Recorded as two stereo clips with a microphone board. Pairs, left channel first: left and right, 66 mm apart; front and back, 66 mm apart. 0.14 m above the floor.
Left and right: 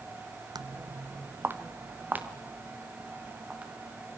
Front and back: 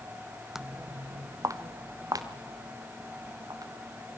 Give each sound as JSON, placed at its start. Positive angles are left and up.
{"t": 0.6, "sound": "footsteps", "azimuth_deg": -95, "distance_m": 0.5}